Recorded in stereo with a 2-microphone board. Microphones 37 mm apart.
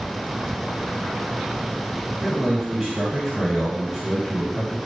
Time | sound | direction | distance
2.2 | a man speaking | 5° right (ahead or behind) | 1.9 m